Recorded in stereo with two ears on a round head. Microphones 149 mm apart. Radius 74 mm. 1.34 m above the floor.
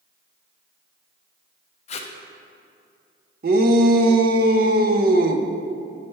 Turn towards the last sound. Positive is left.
turn(degrees=-55)  # may be behind; listen again after turning